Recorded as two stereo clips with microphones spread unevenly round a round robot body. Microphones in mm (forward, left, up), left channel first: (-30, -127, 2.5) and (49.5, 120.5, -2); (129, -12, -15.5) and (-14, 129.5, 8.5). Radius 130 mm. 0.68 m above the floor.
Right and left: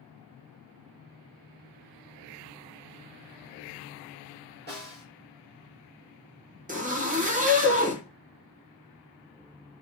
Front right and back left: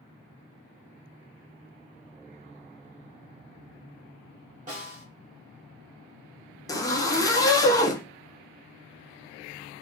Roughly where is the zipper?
Ahead.